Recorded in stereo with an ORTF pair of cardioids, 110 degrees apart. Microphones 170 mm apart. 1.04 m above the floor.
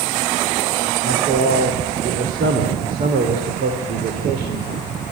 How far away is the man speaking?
About 3 m.